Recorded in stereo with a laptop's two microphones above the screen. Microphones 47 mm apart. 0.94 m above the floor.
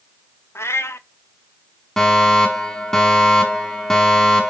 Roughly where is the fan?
I don't hear a fan.